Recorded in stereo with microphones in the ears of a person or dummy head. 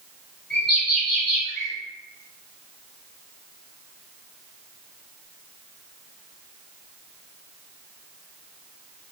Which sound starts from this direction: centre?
A bird, at 0.5 s.